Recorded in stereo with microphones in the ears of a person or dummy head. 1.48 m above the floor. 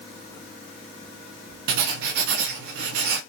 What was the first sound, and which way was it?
Writing, 60° right (ahead or behind).